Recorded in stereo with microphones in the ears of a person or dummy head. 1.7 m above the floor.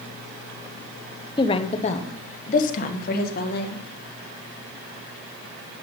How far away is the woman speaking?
About 1.1 m.